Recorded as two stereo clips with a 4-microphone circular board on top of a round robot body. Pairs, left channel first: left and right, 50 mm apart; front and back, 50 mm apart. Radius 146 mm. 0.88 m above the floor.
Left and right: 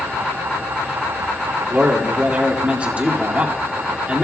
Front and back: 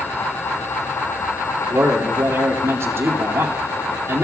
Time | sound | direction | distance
1.7 | a man speaking | 150° right | 2 m